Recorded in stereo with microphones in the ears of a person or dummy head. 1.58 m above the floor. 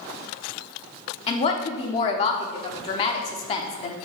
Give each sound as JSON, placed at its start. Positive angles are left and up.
{"t": 1.3, "sound": "a woman speaking", "side_deg": 35, "distance_m": 0.8}